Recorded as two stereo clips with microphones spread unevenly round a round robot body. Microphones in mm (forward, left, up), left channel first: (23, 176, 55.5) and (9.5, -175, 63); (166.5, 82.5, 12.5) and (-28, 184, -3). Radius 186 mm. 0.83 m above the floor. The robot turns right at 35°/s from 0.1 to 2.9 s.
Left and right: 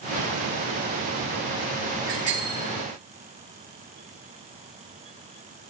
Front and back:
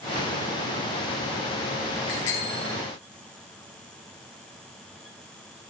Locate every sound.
2.1 s a bicycle bell: 30° right, 9 m; by 2.8 s 5° right, 9 m